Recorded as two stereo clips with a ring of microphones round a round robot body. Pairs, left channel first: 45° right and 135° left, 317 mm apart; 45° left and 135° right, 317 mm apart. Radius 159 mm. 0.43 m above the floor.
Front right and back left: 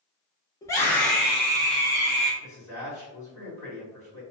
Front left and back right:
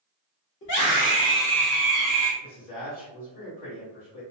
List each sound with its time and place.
0.6 s a scream: 25° left, 1.0 m; by 2.3 s straight behind, 0.9 m
2.4 s a man speaking: 40° left, 1.8 m